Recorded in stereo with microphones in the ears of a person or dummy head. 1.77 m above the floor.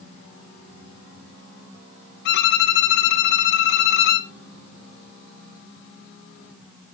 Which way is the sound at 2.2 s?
60° left (ahead or behind).